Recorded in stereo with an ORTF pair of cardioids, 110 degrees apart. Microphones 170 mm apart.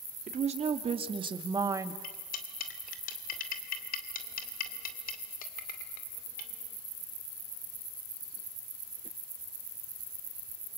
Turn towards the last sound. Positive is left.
turn(degrees=60)